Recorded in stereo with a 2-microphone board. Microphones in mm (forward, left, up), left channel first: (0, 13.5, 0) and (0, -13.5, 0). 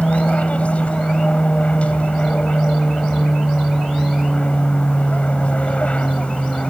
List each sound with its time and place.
0.0 s an aircraft: 55° left (ahead or behind)